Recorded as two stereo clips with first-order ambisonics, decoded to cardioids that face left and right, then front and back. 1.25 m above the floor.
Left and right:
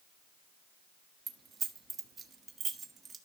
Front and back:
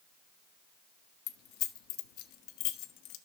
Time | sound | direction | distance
1.3 | keys jangling | 25° right | 1.2 m